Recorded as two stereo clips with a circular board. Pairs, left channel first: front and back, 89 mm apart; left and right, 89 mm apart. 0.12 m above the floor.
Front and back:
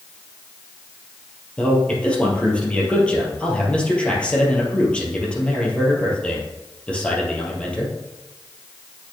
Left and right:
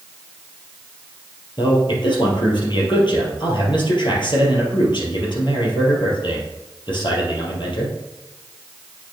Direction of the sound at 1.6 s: 75° left.